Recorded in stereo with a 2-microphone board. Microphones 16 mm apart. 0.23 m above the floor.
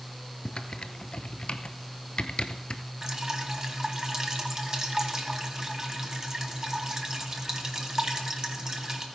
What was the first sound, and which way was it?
Typing on a keyboard, 60° left (ahead or behind).